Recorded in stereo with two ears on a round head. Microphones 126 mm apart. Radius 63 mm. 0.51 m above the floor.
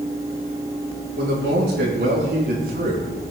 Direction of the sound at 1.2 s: 80° right.